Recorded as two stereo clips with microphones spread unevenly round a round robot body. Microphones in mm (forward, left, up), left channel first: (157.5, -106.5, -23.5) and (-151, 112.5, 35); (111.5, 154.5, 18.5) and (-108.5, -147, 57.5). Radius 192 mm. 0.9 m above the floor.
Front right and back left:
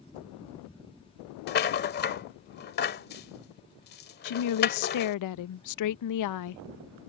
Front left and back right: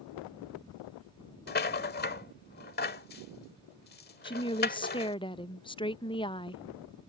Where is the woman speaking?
15° right.